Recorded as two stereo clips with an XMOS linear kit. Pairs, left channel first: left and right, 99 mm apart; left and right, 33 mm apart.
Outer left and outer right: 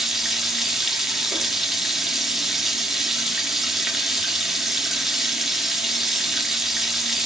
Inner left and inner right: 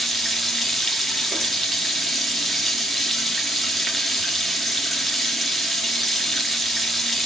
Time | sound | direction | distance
0.0 | running water | 5° right (ahead or behind) | 2 m